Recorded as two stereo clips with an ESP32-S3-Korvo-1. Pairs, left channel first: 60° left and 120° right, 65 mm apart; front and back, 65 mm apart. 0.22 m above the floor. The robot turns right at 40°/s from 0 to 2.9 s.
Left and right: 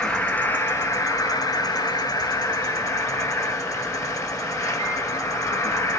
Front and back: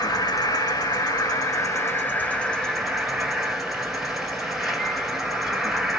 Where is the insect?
20° right, 1.6 m; by 6.0 s 95° left, 1.6 m.